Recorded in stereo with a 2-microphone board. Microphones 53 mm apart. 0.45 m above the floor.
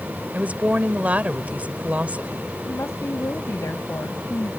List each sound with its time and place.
0.3 s a woman speaking: 30° right (ahead or behind)
2.6 s a woman speaking: 65° left (ahead or behind)